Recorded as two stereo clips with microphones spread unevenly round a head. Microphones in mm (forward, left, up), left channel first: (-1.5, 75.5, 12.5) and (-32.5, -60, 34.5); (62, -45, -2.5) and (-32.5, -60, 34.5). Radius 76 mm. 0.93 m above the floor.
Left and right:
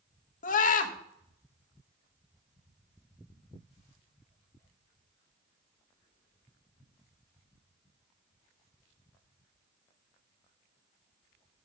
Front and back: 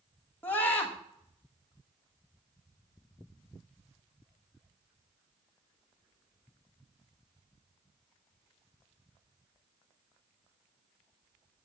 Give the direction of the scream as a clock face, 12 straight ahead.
9 o'clock.